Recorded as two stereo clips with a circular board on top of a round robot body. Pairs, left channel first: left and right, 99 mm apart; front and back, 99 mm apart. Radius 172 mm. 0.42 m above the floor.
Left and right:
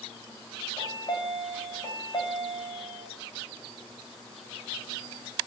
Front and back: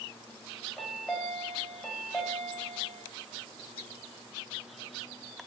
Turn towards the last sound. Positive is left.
turn(degrees=75)